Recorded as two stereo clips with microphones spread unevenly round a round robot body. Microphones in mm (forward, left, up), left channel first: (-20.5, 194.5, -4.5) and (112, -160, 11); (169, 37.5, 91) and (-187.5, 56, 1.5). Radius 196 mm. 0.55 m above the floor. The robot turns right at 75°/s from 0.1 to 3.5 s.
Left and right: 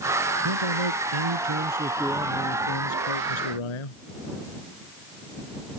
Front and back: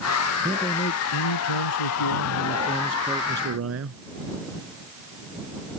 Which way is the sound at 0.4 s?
105° right.